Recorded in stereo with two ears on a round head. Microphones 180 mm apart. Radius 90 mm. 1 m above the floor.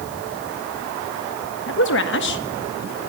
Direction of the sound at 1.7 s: 65° left (ahead or behind).